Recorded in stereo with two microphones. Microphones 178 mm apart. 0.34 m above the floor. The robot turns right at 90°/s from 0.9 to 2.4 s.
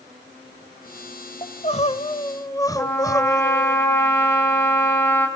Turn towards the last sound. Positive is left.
turn(degrees=15)  # may be behind; listen again after turning